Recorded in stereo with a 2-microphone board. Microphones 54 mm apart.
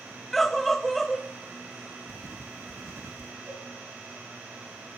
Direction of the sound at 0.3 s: 5° left (ahead or behind).